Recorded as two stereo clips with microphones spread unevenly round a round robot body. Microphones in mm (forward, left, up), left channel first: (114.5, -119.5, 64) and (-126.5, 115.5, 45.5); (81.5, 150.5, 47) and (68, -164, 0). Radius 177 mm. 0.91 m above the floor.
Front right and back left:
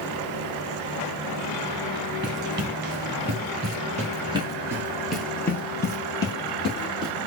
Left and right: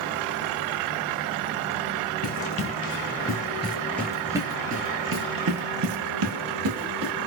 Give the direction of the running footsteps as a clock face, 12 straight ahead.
9 o'clock.